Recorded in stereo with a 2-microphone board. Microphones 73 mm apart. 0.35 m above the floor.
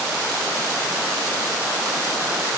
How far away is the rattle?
No rattle in this recording.